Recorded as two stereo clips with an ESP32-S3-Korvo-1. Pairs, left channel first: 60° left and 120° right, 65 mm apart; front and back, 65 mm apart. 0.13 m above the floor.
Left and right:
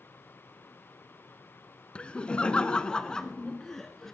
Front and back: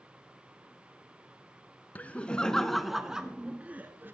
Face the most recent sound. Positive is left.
turn(degrees=145)